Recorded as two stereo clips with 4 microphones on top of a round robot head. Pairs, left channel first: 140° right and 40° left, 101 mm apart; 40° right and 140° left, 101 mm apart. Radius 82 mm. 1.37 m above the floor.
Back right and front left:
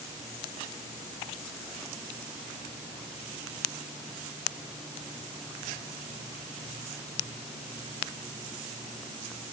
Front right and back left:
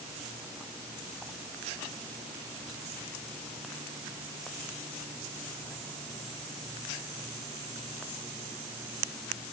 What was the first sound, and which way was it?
Only background noise.